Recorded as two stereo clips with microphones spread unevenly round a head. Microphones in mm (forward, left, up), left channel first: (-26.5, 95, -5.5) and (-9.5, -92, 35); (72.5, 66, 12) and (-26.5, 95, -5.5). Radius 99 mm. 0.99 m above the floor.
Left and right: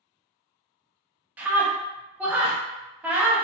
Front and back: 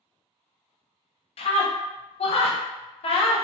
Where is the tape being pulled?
No tape being pulled in this recording.